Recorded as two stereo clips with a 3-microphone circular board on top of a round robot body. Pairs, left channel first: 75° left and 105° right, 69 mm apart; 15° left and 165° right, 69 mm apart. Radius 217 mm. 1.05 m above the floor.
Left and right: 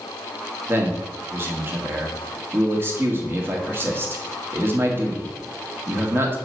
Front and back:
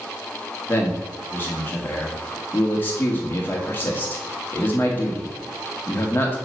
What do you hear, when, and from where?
0.7 s a man speaking: 50° right, 1.4 m